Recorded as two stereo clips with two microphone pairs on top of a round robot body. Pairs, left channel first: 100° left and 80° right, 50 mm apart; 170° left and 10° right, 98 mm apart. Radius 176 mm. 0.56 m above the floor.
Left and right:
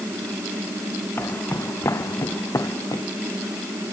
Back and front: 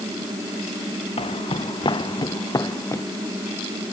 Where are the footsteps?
145° left; by 3.0 s 105° left.